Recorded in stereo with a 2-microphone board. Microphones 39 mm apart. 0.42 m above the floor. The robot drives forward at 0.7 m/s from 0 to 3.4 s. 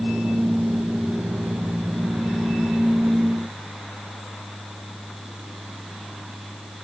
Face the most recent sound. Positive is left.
No sound to turn to.